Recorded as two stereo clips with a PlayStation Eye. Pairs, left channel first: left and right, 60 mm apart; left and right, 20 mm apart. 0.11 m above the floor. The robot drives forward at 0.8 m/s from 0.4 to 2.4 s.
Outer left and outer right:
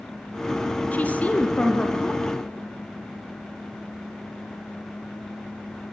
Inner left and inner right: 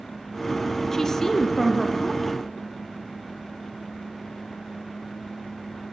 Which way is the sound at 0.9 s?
25° left (ahead or behind).